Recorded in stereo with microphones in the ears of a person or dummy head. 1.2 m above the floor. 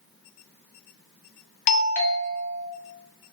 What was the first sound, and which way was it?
A doorbell, 35° left (ahead or behind).